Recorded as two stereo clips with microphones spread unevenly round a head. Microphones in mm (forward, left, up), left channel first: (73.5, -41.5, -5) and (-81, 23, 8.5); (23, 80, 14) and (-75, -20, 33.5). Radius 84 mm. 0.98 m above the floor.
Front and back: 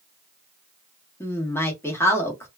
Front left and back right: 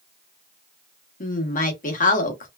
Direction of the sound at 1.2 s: 50° left.